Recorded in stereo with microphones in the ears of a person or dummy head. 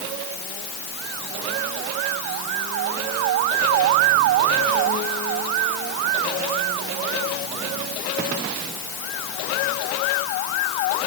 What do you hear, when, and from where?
Only background noise.